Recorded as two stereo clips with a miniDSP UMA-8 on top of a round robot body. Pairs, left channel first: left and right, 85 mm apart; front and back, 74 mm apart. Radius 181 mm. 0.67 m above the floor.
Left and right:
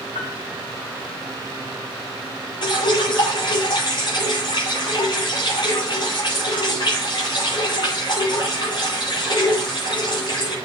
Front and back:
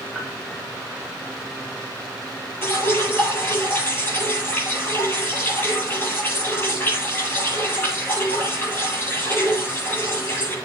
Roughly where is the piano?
Left.